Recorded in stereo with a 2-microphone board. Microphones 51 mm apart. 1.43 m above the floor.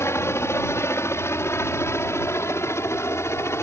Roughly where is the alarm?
No alarm in this recording.